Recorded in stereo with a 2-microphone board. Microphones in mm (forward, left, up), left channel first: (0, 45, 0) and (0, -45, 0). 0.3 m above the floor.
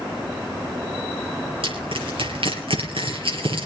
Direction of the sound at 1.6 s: 80° right.